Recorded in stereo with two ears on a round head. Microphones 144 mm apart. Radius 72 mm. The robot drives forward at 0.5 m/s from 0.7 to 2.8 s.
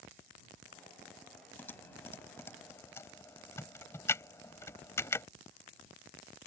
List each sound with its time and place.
1.6 s typing on a keyboard: 15° left (ahead or behind)